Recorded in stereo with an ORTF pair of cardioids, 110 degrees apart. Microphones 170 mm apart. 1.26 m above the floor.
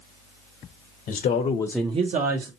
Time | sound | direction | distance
1.1 | a man speaking | 65° left | 1.1 m